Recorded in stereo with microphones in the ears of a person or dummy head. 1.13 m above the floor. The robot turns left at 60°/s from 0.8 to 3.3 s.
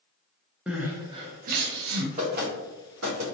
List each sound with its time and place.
0.7 s crying: 5° right (ahead or behind), 0.7 m; by 2.1 s 75° right (ahead or behind), 0.7 m
2.2 s knocking: 35° right (ahead or behind), 1.6 m; by 3.2 s 75° right (ahead or behind), 1.6 m